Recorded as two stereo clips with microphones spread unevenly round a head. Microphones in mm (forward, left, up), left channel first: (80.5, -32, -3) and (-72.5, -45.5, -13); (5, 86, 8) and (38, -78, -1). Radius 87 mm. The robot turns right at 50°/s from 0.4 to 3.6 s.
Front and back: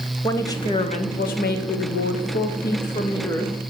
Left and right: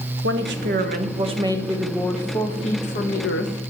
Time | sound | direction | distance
0.2 | a woman speaking | 65° right | 1.3 m